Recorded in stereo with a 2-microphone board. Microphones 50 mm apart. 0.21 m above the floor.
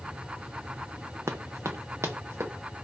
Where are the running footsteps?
75° right (ahead or behind), 0.6 m; by 2.5 s 85° right, 1.2 m.